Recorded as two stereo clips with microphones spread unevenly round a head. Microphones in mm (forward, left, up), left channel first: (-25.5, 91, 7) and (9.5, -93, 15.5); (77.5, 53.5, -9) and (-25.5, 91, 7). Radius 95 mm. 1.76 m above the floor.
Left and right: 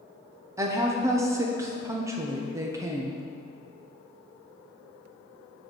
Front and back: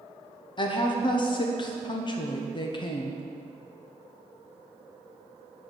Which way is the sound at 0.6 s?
20° right.